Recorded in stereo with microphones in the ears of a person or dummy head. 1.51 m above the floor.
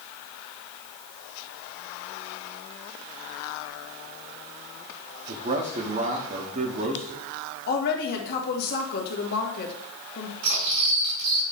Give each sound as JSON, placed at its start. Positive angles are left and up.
{"t": 5.3, "sound": "a man speaking", "side_deg": -35, "distance_m": 1.0}
{"t": 7.7, "sound": "a woman speaking", "side_deg": 55, "distance_m": 1.8}
{"t": 10.4, "sound": "cutlery clinking", "side_deg": -75, "distance_m": 4.0}